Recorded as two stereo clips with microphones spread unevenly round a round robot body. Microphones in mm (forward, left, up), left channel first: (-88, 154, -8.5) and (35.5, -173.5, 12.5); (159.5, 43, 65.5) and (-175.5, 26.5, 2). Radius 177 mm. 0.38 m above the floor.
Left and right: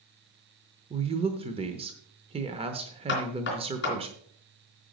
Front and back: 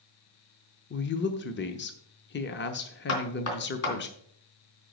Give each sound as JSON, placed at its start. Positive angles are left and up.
{"t": 0.9, "sound": "a woman speaking", "azimuth_deg": -15, "distance_m": 0.8}
{"t": 3.1, "sound": "knocking", "azimuth_deg": 50, "distance_m": 3.0}